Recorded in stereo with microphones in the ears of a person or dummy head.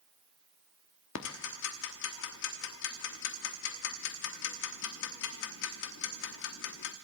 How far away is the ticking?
About 1.1 m.